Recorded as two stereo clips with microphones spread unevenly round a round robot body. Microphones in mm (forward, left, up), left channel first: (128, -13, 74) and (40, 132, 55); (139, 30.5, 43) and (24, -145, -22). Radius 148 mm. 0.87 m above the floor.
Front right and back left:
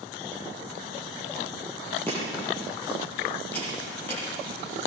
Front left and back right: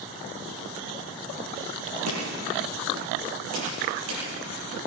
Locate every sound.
2.1 s chopping: 140° right, 9.5 m